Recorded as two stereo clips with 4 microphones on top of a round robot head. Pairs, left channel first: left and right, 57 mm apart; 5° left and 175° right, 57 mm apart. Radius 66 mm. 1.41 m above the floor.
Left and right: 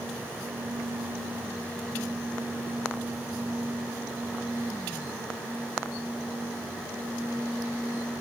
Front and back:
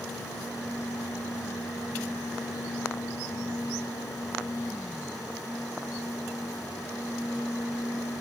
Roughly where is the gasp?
I don't hear a gasp.